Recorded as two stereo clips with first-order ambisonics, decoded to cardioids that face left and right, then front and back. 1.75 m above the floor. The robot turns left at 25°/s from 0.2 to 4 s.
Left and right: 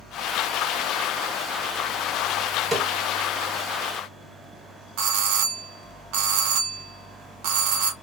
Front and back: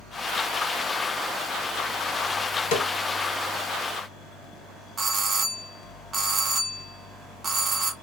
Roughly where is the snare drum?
Ahead.